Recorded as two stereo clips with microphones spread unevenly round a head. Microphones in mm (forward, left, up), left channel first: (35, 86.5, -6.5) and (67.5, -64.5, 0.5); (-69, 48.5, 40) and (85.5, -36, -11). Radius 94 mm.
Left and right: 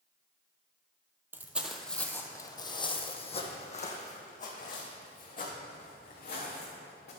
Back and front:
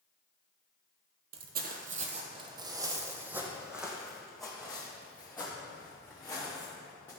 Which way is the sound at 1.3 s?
15° right.